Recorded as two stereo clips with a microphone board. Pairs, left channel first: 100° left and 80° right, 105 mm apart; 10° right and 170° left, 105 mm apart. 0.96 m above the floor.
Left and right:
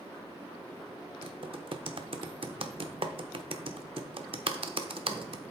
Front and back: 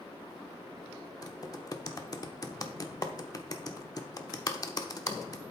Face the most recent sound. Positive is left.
turn(degrees=-60)